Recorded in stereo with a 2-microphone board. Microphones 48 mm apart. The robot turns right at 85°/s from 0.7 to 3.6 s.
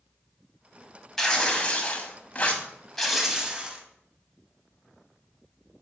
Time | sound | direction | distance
1.2 | tearing paper | 15° left | 1.1 m